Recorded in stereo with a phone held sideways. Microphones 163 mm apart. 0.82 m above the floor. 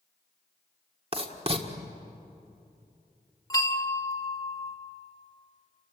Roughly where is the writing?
Right.